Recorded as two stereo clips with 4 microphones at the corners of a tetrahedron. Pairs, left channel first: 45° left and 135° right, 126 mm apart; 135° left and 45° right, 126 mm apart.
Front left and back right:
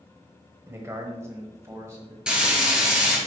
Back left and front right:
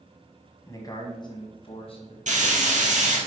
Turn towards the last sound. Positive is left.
turn(degrees=-50)